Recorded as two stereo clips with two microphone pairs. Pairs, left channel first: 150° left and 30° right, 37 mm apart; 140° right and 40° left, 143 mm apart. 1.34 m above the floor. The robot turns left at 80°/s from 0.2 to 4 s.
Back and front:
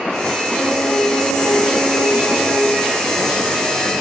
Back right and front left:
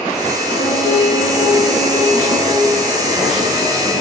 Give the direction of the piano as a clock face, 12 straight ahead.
6 o'clock.